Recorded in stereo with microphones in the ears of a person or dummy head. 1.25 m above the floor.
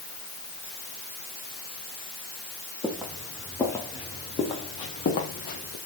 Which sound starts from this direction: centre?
Footsteps, at 2.8 s.